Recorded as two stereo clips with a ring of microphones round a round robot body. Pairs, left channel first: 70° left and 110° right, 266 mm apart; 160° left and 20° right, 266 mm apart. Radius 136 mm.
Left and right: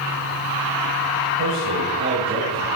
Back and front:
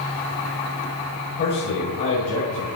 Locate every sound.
1.4 s a man speaking: 155° right, 2.5 m; by 2.6 s 170° right, 3 m